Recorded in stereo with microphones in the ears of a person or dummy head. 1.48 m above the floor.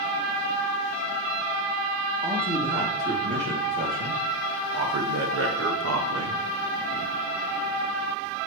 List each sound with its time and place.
2.2 s a man speaking: 30° right (ahead or behind), 2.5 m; by 6.4 s 70° right (ahead or behind), 1.3 m